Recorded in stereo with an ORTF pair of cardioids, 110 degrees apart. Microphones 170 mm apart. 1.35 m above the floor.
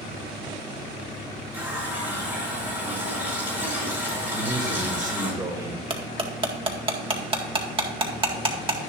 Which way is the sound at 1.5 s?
10° right.